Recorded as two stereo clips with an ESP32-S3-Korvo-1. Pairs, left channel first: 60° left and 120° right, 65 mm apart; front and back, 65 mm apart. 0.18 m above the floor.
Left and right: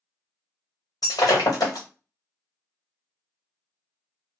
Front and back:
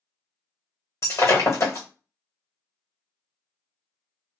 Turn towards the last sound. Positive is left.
turn(degrees=45)